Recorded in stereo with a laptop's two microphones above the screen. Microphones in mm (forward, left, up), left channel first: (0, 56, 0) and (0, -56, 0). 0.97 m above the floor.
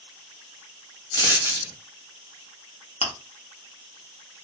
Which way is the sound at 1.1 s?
40° left (ahead or behind).